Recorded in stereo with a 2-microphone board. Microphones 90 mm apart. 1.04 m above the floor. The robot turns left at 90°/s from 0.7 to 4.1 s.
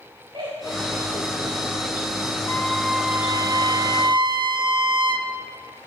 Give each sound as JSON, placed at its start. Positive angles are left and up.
{"t": 0.3, "sound": "laughter", "side_deg": -85, "distance_m": 4.0}
{"t": 2.5, "sound": "a trumpet", "azimuth_deg": 45, "distance_m": 1.9}